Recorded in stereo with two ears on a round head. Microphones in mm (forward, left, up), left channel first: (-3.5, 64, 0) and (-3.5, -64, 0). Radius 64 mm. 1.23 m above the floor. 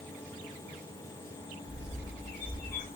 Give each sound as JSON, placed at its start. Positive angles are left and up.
{"t": 1.7, "sound": "a bird", "side_deg": 75, "distance_m": 8.5}